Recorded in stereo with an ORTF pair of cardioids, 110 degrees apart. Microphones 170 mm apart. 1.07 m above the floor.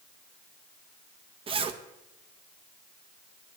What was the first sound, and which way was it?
A zipper, 35° right.